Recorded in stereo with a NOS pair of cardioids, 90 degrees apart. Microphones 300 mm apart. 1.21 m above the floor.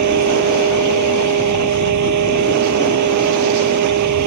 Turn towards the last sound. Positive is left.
turn(degrees=-70)